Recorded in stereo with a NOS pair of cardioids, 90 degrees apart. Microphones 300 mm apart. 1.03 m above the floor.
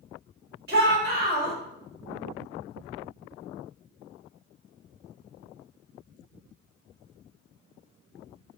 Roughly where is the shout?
Ahead right.